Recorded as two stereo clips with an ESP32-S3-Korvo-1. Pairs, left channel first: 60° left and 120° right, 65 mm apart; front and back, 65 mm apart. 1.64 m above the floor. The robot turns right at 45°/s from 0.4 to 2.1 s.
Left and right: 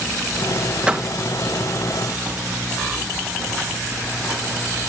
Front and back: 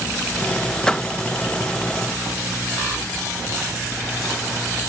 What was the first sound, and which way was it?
A door slam, 65° right.